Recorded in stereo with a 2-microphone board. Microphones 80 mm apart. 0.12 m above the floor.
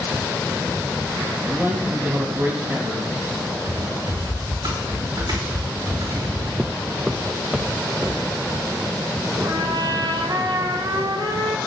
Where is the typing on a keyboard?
65° right (ahead or behind), 5 m.